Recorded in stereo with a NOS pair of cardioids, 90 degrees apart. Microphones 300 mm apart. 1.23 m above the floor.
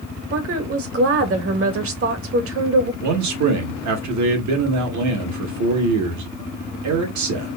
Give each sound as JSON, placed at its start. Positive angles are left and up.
{"t": 0.3, "sound": "a woman speaking", "azimuth_deg": -45, "distance_m": 1.4}
{"t": 3.0, "sound": "a man speaking", "azimuth_deg": -65, "distance_m": 1.9}